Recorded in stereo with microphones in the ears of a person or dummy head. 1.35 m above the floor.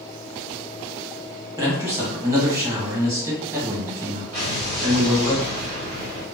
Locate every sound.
1.6 s a man speaking: 20° right (ahead or behind), 1.3 m
4.3 s an explosion: 45° right (ahead or behind), 1.5 m